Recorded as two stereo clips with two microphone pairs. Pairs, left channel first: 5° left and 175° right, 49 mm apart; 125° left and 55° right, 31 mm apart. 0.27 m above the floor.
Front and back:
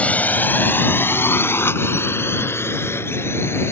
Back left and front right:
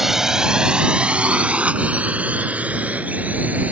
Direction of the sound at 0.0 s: 15° left.